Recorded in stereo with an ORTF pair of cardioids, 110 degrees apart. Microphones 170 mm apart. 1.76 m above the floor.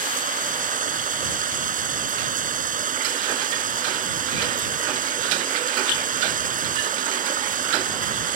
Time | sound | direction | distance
0.0 | running water | 50° right | ?